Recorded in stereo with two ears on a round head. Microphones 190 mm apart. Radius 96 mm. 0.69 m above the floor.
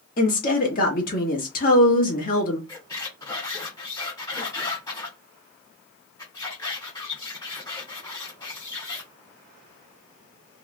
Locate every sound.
0.2 s a woman speaking: 40° left (ahead or behind), 1.3 m
2.7 s a squeak: 20° left (ahead or behind), 1.4 m